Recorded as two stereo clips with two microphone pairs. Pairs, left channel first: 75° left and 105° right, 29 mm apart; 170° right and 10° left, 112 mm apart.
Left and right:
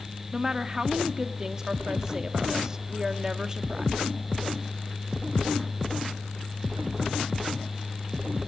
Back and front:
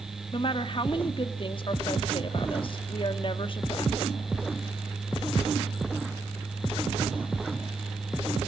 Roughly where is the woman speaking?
Behind.